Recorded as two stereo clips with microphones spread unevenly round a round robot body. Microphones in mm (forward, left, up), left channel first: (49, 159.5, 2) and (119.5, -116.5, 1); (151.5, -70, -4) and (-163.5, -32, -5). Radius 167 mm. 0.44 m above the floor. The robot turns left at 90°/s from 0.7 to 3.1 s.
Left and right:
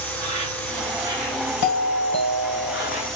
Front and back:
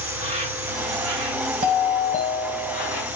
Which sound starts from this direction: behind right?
An insect, at 0.0 s.